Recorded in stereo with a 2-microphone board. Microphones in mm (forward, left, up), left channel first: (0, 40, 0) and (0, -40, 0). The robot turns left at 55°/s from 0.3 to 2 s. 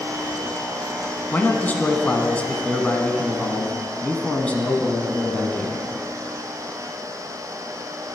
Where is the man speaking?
25° left (ahead or behind), 1.1 m; by 5.8 s 15° left (ahead or behind), 1.1 m.